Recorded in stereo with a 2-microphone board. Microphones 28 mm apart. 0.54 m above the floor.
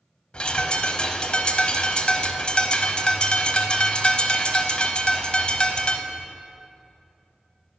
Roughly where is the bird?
Left.